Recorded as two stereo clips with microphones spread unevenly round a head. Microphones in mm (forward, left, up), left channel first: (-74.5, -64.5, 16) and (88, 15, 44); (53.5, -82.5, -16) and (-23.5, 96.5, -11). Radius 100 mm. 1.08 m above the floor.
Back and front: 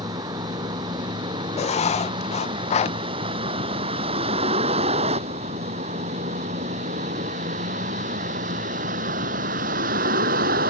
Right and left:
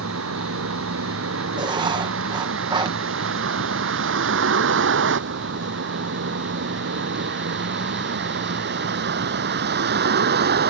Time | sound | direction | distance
0.0 | a vehicle | 95° left | ?
1.6 | writing | straight behind | ?